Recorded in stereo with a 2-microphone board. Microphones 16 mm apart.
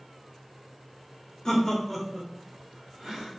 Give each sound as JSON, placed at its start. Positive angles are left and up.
{"t": 1.4, "sound": "laughter", "side_deg": 35, "distance_m": 0.6}